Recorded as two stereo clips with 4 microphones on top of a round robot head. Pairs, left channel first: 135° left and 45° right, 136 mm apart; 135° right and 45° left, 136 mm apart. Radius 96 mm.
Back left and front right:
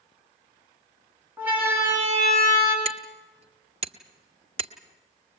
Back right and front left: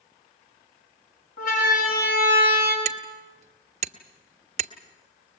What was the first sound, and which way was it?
A siren, 125° right.